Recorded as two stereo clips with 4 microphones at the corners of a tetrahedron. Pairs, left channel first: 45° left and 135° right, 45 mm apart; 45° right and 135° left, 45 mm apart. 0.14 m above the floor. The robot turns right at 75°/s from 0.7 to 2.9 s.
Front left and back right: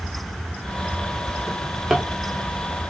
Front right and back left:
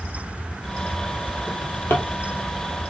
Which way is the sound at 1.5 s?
85° right.